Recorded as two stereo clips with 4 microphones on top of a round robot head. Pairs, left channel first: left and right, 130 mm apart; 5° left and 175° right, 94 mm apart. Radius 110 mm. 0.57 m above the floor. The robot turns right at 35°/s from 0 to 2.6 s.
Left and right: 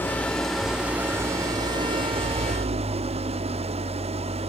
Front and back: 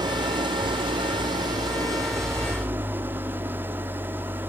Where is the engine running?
160° left, 1.2 m; by 4.5 s 110° right, 1.2 m.